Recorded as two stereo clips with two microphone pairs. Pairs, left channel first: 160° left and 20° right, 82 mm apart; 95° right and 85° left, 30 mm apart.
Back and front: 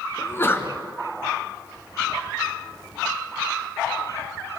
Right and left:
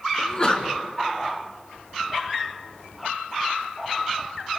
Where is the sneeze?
145° right, 2.5 m.